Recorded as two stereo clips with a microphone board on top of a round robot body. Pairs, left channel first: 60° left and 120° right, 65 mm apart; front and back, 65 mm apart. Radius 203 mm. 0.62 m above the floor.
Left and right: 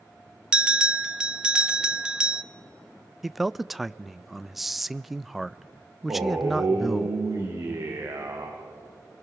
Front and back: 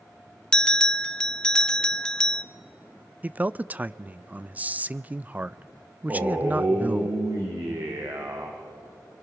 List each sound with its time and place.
0.5 s a bell: 65° right, 0.9 m
3.2 s a man speaking: 155° left, 0.6 m
6.1 s a man speaking: 145° right, 2.5 m